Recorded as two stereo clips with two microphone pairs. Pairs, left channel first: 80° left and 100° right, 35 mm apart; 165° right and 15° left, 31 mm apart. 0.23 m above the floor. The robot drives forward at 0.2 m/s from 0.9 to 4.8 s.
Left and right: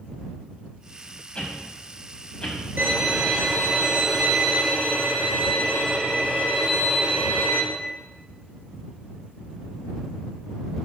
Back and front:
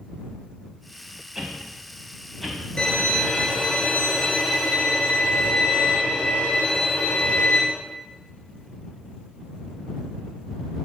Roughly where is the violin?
Right.